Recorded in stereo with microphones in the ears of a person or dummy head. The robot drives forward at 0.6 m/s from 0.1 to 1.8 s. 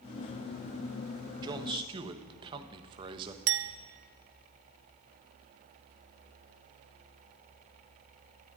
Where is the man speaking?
20° right (ahead or behind), 1.4 m; by 3.4 s 25° right (ahead or behind), 1.2 m.